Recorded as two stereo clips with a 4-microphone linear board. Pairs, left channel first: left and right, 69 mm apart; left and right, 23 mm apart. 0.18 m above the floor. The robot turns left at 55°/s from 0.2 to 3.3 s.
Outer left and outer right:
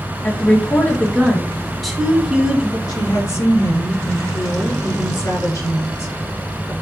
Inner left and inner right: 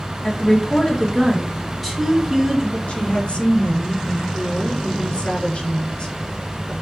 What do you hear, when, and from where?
0.2 s a woman speaking: 25° left (ahead or behind), 1.5 m; by 2.8 s 20° right (ahead or behind), 1.5 m
2.9 s a woman speaking: 65° left (ahead or behind), 3 m; by 6.7 s 55° left (ahead or behind), 3 m